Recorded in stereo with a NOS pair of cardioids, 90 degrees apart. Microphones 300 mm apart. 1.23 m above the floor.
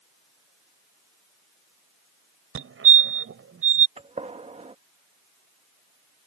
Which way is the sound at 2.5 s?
45° right.